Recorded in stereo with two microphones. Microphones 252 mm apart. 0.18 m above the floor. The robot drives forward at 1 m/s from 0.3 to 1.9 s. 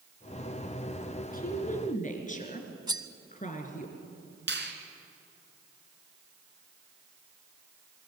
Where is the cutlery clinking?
15° right (ahead or behind), 0.8 m.